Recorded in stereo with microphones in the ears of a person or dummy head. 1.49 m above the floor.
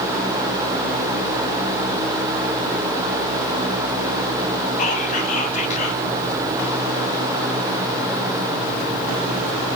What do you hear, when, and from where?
4.8 s whispering: 40° left (ahead or behind), 1.8 m